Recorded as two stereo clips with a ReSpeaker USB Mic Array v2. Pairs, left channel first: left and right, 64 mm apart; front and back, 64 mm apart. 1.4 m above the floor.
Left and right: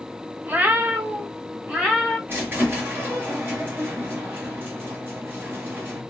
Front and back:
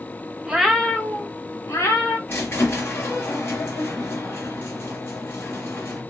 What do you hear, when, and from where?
0.5 s a cat meowing: 120° right, 0.7 m; by 2.2 s 20° right, 1.5 m
2.3 s a squeak: 45° right, 1.5 m